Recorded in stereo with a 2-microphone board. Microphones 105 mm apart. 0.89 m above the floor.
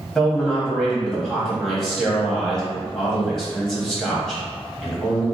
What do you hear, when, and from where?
0.1 s a man speaking: 5° left (ahead or behind), 1.7 m